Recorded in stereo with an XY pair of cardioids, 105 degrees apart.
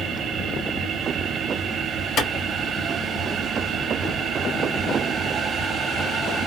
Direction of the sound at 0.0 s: 65° right.